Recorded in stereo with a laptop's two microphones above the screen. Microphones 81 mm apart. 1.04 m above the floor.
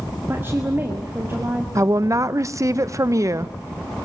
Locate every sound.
0.3 s a woman speaking: 30° right (ahead or behind), 1.8 m
1.8 s a woman speaking: 40° right (ahead or behind), 0.7 m